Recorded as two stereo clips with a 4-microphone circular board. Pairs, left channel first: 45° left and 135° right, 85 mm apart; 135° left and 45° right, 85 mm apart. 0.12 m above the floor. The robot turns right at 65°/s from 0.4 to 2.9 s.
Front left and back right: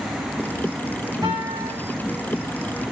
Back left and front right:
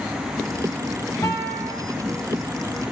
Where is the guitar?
175° right, 4.5 m; by 1.7 s 145° right, 4.5 m.